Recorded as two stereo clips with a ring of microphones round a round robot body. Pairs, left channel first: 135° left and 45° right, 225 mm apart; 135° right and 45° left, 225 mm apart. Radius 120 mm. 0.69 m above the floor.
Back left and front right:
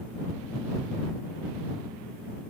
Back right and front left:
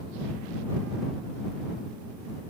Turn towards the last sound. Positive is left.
No sound to turn to.